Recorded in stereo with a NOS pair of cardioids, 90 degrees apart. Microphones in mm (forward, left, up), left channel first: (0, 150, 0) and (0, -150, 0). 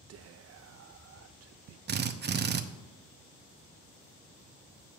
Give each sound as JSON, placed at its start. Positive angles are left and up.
{"t": 0.1, "sound": "whispering", "azimuth_deg": -55, "distance_m": 0.7}
{"t": 1.9, "sound": "a drill", "azimuth_deg": -35, "distance_m": 0.8}